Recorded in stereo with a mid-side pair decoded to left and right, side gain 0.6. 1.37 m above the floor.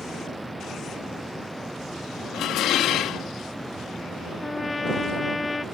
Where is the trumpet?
20° left.